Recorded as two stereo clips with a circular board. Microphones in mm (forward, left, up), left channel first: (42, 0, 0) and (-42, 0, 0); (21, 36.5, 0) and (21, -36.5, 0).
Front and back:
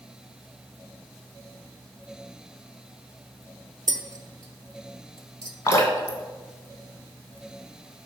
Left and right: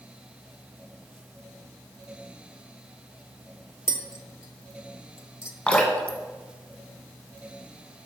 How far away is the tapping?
About 1.0 m.